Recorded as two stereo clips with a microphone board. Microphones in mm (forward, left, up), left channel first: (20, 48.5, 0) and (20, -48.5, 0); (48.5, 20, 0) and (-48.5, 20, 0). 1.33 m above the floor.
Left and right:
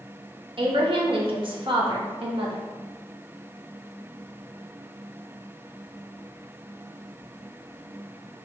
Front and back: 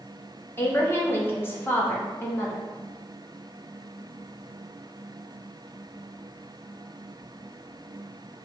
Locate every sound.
0.6 s a woman speaking: 65° right, 1.1 m